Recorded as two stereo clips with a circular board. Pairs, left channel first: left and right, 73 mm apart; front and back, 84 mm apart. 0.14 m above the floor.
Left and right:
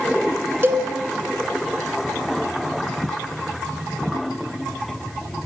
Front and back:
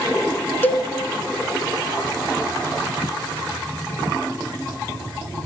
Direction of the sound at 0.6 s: 50° right.